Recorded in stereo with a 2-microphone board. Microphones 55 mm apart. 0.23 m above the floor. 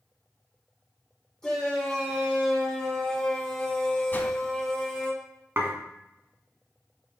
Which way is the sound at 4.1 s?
35° left (ahead or behind).